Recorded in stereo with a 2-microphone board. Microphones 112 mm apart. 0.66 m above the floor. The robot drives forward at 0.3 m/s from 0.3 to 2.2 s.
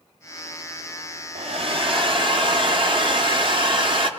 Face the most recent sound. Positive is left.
turn(degrees=-50)  # may be behind; listen again after turning